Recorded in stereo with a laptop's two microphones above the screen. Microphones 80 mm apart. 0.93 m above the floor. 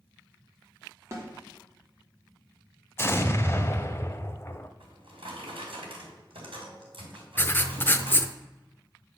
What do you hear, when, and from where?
1.1 s a snare drum: 30° right (ahead or behind), 2.5 m
3.0 s an explosion: 30° left (ahead or behind), 0.8 m
4.8 s a drawer: 85° right, 3 m
7.4 s writing: 25° left (ahead or behind), 0.6 m